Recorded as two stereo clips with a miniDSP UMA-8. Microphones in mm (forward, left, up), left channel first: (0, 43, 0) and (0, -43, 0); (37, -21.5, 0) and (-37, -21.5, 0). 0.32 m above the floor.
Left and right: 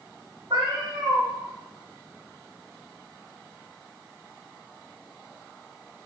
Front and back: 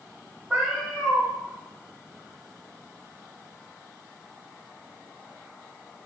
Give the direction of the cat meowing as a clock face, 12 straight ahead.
3 o'clock.